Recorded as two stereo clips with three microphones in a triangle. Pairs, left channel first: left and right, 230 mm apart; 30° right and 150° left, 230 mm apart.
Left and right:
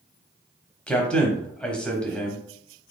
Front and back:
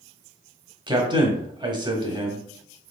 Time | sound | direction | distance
0.9 | a man speaking | 165° left | 1.0 m